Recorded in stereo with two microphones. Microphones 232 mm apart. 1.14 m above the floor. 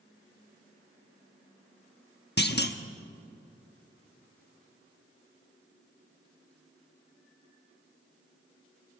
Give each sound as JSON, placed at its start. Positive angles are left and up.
{"t": 2.4, "sound": "a clunk", "side_deg": 45, "distance_m": 1.0}